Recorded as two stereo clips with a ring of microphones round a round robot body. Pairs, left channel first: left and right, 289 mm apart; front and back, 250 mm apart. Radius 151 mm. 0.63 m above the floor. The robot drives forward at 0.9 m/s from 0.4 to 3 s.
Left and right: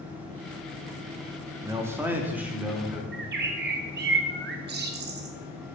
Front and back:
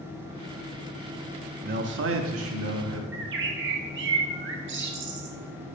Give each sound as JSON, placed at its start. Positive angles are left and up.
{"t": 1.6, "sound": "a man speaking", "azimuth_deg": -160, "distance_m": 0.6}
{"t": 3.1, "sound": "a bird", "azimuth_deg": -140, "distance_m": 0.7}